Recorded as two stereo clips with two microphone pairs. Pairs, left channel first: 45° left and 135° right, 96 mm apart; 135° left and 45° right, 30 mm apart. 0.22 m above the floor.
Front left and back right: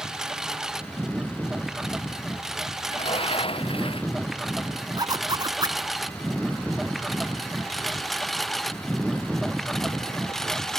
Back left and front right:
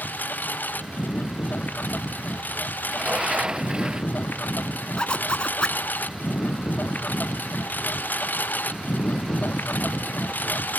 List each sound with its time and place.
0.0 s a lawn mower: 140° left; by 10.8 s 130° left
2.9 s a sliding door: 15° left
5.0 s a zipper: 175° right